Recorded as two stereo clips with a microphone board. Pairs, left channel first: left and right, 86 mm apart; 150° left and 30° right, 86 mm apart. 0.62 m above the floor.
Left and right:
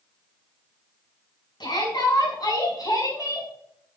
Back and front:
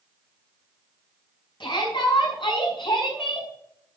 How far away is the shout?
About 6 m.